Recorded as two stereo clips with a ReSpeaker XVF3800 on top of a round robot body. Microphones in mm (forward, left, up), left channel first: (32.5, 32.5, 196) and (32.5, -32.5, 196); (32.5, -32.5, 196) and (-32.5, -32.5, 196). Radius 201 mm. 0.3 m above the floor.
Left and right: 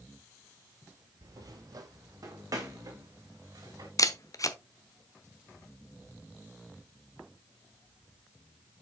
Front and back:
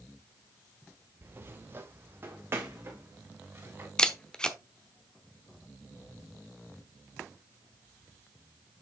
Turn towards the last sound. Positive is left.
turn(degrees=75)